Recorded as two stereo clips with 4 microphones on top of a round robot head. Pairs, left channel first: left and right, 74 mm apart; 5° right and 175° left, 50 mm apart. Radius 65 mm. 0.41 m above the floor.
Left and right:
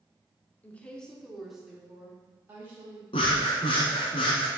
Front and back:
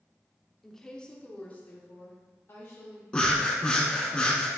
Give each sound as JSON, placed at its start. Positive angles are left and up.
{"t": 0.6, "sound": "a woman speaking", "azimuth_deg": 70, "distance_m": 0.8}
{"t": 3.1, "sound": "breathing", "azimuth_deg": 65, "distance_m": 0.9}